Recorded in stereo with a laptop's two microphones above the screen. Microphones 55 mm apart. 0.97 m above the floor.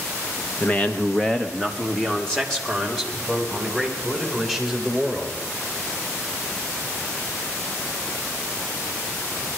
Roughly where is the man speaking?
Left.